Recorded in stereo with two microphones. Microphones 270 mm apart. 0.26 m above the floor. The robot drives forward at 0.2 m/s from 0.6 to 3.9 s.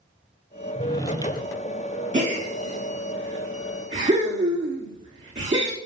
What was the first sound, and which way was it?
A drawer, 15° left (ahead or behind).